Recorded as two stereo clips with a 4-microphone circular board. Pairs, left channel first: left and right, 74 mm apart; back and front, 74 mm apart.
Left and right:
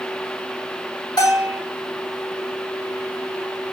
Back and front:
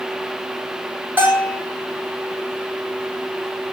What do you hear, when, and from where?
1.2 s a bell: 65° left, 6 m